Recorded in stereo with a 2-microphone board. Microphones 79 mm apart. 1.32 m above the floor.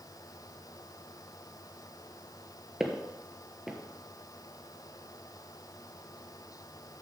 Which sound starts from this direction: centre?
Footsteps, at 2.8 s.